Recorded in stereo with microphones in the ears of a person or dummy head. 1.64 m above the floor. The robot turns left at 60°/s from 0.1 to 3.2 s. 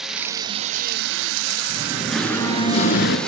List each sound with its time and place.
0.0 s running water: straight ahead, 0.7 m; by 3.3 s 175° left, 0.7 m
1.7 s singing: 155° right, 3.5 m; by 3.2 s 115° left, 3.5 m